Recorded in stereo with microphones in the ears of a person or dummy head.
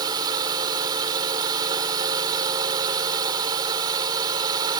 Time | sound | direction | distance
0.0 | a drone | 30° right (ahead or behind) | ?